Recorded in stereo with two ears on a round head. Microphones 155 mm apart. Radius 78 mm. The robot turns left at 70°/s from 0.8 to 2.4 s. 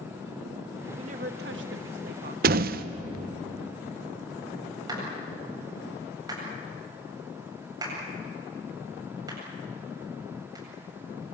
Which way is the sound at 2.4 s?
60° right (ahead or behind).